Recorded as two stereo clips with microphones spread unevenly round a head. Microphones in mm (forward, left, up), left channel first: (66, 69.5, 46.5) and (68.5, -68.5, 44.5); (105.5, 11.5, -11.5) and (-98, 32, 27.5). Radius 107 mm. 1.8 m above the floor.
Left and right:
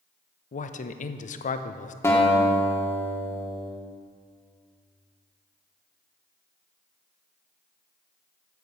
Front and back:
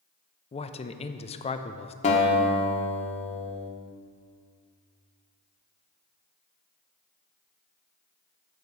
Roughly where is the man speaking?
Ahead left.